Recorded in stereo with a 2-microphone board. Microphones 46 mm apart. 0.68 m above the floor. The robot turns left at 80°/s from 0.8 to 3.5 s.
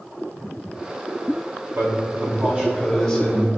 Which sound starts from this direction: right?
A man speaking, at 1.8 s.